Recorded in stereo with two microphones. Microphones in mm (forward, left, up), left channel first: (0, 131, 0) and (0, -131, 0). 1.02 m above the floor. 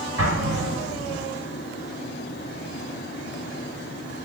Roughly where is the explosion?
Right.